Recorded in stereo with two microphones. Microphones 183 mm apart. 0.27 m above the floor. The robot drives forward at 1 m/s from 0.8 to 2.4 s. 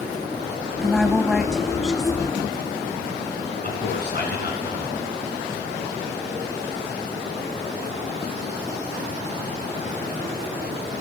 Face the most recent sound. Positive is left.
turn(degrees=65)  # may be behind; listen again after turning